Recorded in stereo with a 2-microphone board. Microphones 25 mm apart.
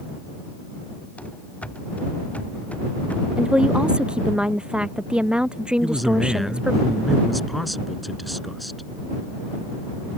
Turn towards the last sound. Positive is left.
turn(degrees=0)  # may be behind; listen again after turning